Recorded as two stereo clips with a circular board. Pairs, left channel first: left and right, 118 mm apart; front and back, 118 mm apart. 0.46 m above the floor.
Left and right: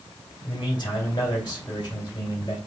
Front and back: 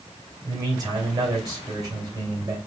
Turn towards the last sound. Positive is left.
turn(degrees=130)